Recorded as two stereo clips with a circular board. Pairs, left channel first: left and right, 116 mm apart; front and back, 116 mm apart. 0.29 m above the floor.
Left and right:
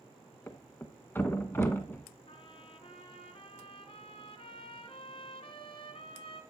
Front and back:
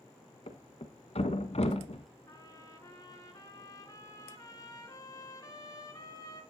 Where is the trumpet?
55° left, 1.9 m.